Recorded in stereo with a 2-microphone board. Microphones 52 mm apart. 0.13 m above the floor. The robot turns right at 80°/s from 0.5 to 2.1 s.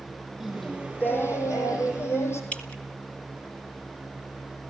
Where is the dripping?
25° left (ahead or behind), 1.4 m.